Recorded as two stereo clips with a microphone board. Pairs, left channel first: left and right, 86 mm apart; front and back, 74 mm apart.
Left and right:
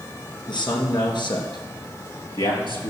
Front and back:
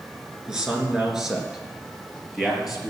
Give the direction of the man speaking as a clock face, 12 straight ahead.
9 o'clock.